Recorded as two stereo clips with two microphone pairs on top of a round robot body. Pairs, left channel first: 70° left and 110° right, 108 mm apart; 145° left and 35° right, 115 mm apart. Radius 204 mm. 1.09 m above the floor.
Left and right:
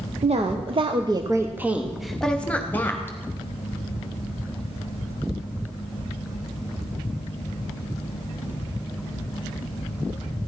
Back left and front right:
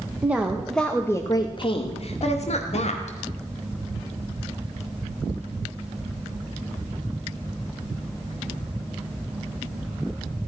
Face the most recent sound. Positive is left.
turn(degrees=140)